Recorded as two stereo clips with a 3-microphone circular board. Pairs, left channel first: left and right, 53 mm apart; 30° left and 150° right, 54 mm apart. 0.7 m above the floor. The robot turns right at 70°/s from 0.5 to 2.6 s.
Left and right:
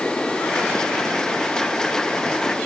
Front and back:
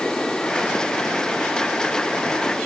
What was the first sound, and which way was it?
Only background noise.